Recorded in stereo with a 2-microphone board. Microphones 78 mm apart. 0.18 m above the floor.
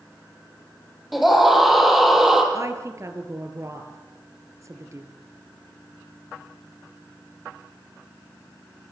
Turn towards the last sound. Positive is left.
turn(degrees=-40)  # may be behind; listen again after turning